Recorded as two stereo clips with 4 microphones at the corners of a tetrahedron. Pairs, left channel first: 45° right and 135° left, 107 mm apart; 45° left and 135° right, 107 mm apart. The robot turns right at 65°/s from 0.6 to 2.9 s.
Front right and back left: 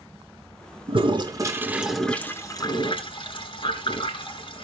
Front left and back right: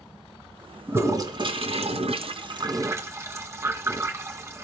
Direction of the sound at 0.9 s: 155° left.